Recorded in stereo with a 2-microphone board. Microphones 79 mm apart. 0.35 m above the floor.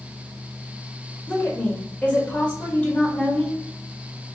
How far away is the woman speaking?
About 1.1 m.